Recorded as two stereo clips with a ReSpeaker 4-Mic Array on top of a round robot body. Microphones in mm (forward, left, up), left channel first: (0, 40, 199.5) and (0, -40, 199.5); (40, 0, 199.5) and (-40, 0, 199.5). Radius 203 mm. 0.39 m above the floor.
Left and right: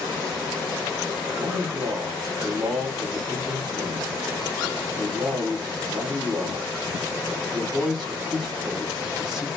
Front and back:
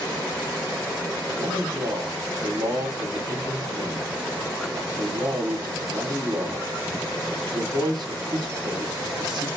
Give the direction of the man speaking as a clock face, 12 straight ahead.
6 o'clock.